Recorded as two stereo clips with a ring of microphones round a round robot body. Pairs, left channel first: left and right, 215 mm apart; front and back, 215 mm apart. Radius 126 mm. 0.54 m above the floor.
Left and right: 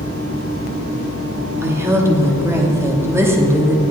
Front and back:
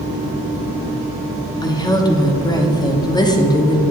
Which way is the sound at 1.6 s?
35° right.